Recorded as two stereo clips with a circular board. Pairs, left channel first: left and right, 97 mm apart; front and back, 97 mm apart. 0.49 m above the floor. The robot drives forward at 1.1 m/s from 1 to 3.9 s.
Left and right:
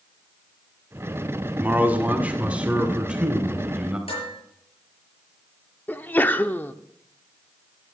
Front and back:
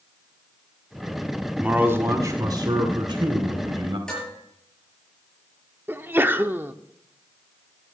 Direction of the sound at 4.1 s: 80° left.